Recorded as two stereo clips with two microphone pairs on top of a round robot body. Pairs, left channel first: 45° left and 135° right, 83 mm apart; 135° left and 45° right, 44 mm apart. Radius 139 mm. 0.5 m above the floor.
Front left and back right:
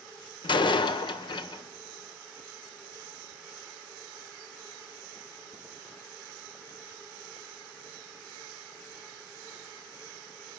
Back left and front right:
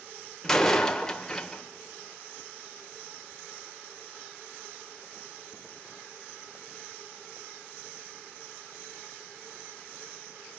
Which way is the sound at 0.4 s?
55° left.